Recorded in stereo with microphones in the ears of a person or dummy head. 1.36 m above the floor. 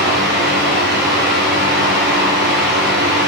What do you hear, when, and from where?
0.0 s a fan: 50° right (ahead or behind), 1.2 m